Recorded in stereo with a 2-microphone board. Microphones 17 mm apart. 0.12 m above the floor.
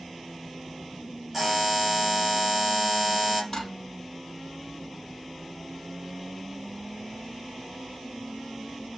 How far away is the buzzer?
About 3 m.